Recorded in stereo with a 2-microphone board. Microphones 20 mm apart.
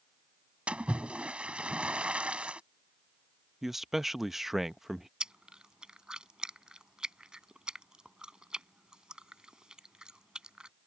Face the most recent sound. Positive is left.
turn(degrees=-45)  # may be behind; listen again after turning